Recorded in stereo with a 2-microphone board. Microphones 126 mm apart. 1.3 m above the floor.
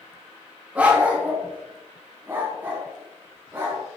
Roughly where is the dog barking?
Centre.